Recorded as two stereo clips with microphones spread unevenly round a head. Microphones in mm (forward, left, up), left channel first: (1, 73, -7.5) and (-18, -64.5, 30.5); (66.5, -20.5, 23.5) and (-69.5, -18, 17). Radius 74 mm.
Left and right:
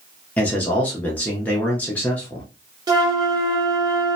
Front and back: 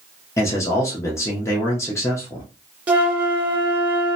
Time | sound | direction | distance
0.4 | a man speaking | 50° left | 0.6 m
2.9 | a flute | 105° right | 0.8 m